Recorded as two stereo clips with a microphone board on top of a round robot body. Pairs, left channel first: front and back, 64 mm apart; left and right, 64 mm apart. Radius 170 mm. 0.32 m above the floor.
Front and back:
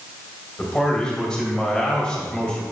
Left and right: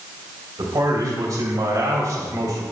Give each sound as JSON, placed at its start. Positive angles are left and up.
{"t": 0.6, "sound": "a man speaking", "azimuth_deg": -75, "distance_m": 3.0}